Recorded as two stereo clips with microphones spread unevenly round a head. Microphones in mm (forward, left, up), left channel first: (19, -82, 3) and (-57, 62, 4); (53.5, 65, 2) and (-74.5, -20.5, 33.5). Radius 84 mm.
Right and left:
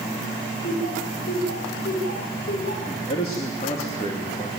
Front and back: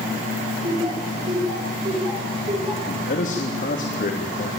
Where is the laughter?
90° right, 7 m.